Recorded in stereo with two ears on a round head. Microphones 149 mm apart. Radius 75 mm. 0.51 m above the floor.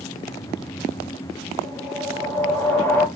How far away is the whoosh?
About 0.8 m.